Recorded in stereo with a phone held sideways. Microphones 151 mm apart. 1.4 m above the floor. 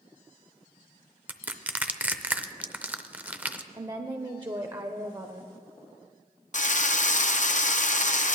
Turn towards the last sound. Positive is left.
turn(degrees=55)  # may be behind; listen again after turning